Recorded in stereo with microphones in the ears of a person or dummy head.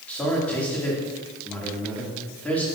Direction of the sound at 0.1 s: 5° left (ahead or behind).